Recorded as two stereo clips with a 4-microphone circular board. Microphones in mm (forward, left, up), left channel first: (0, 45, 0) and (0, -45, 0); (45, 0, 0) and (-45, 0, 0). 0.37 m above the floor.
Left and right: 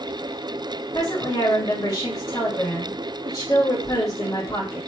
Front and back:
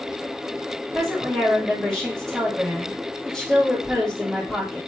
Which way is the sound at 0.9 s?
85° left.